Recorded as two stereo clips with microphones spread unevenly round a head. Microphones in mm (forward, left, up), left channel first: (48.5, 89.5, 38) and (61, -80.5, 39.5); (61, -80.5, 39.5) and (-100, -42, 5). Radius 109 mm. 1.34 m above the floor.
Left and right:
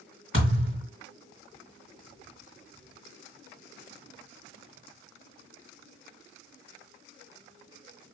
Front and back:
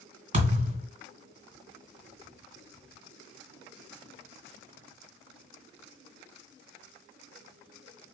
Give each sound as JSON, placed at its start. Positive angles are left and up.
{"t": 0.3, "sound": "a thud", "azimuth_deg": -140, "distance_m": 2.0}